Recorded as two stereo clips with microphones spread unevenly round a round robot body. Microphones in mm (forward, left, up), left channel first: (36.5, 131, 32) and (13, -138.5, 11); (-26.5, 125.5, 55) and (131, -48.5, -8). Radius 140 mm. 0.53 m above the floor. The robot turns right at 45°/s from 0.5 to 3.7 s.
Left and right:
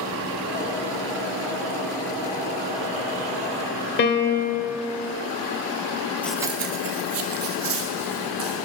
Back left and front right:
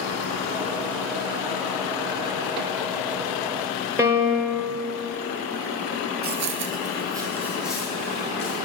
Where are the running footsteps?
5° left, 0.7 m; by 8.5 s 145° right, 3 m.